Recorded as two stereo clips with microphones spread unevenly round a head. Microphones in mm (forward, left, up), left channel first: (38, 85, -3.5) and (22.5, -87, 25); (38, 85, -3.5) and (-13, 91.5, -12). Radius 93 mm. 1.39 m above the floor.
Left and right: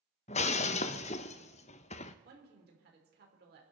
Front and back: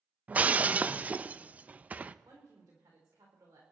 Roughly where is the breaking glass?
Behind left.